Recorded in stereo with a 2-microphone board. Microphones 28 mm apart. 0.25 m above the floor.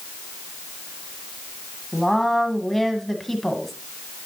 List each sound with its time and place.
1.9 s a woman speaking: 10° left (ahead or behind), 1.6 m